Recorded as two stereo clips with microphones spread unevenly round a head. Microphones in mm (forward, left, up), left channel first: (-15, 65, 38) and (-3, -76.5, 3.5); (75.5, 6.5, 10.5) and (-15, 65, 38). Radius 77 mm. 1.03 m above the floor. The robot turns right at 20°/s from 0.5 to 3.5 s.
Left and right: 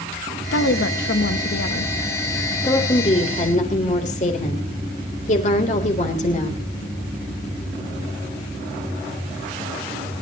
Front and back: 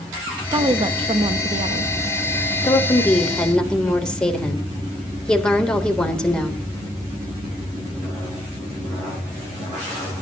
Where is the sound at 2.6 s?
30° left, 3.5 m; by 6.6 s 50° left, 3.5 m.